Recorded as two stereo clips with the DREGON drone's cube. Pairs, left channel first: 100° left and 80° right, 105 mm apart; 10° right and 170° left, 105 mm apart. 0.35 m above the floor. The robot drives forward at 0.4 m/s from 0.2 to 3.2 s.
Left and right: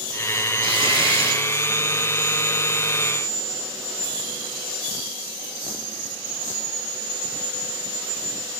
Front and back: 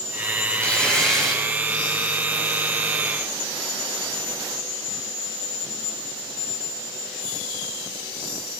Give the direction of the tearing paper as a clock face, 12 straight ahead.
3 o'clock.